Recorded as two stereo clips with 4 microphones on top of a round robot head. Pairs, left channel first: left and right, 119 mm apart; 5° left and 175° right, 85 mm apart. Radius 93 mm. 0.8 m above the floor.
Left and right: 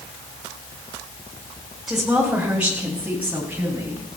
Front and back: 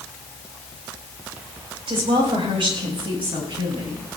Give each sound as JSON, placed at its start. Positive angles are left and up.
{"t": 1.9, "sound": "a woman speaking", "azimuth_deg": -175, "distance_m": 4.0}